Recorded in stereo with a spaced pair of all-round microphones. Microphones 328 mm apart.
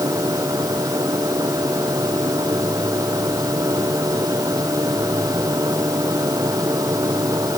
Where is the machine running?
10° right (ahead or behind).